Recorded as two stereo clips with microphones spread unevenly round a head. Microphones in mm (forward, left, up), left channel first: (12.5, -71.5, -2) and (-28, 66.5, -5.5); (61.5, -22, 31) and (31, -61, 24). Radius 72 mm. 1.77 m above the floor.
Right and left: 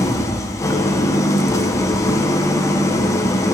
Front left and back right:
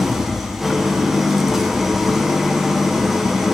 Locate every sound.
0.0 s an engine running: 30° right, 0.8 m